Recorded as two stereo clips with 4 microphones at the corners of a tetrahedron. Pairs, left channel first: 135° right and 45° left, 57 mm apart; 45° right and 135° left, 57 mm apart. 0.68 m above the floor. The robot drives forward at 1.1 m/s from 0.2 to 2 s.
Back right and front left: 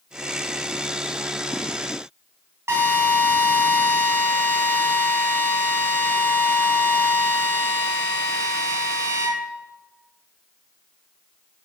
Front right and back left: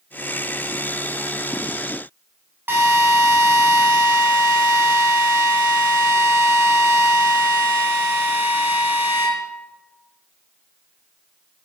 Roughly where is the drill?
Left.